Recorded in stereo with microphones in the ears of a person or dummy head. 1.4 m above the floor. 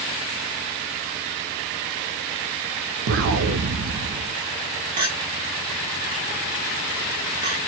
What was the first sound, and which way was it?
An explosion, 75° right (ahead or behind).